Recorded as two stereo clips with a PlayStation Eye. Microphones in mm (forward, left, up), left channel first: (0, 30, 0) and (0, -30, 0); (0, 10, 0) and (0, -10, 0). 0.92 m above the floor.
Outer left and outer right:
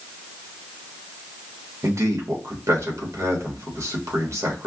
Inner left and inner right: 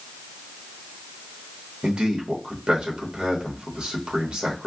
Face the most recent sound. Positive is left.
turn(degrees=-50)  # may be behind; listen again after turning